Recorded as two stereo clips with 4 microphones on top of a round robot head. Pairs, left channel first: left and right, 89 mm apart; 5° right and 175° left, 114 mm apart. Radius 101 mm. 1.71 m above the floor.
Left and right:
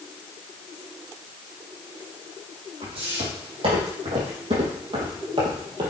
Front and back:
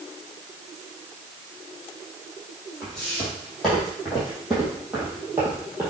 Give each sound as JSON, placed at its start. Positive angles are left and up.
{"t": 2.8, "sound": "footsteps", "azimuth_deg": -90, "distance_m": 4.5}